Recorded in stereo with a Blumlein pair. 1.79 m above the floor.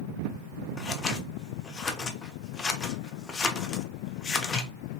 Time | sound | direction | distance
0.8 | scissors | 20° left | 0.7 m